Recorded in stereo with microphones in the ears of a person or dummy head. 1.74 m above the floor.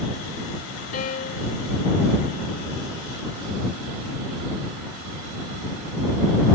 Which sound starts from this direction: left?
A piano, at 0.9 s.